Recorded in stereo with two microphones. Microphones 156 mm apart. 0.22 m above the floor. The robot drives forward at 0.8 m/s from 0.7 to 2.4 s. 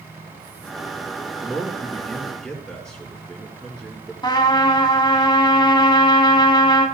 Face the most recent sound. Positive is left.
turn(degrees=25)  # may be behind; listen again after turning